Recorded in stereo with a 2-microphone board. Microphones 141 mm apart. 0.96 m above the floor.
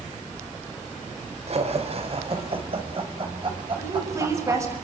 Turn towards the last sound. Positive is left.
turn(degrees=-25)  # may be behind; listen again after turning